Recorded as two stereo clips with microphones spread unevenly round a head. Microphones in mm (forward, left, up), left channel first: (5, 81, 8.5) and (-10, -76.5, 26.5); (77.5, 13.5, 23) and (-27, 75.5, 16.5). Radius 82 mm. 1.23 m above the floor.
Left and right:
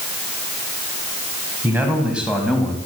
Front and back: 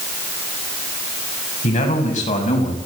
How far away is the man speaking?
About 6.5 m.